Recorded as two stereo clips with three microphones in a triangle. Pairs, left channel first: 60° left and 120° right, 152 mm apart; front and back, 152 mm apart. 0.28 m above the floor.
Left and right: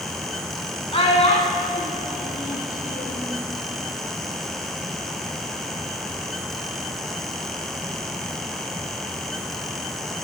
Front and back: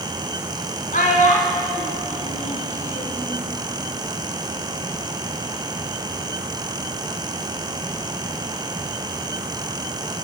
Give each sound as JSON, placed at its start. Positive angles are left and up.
{"t": 0.9, "sound": "a child speaking", "azimuth_deg": 15, "distance_m": 1.9}